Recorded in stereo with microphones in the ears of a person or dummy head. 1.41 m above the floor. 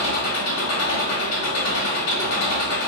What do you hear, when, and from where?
0.0 s an engine running: 85° left, 1.7 m